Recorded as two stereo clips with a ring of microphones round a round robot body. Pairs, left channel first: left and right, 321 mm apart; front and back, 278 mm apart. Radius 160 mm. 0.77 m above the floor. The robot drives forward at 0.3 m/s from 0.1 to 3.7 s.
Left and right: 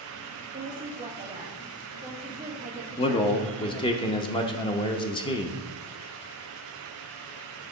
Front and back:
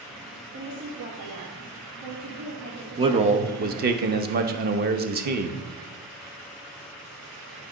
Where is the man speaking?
135° left, 0.7 m; by 5.6 s 155° left, 0.8 m.